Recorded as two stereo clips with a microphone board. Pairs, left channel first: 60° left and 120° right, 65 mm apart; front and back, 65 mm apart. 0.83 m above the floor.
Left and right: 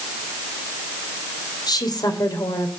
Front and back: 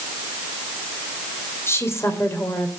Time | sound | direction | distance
1.7 | a woman speaking | 50° left | 2.5 m